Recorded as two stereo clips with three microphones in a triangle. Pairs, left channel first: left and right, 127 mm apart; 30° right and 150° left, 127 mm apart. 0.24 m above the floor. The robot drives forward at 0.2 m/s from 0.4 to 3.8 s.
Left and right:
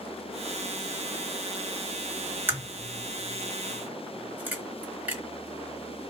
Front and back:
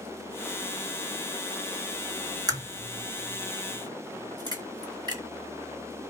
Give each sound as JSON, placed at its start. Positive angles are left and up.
{"t": 2.5, "sound": "a crack", "azimuth_deg": -160, "distance_m": 1.6}